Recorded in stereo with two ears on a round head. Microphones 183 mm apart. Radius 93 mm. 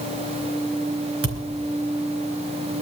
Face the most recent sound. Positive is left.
turn(degrees=-80)